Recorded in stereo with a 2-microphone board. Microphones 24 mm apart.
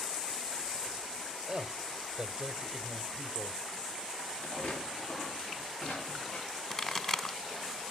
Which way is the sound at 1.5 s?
25° right (ahead or behind).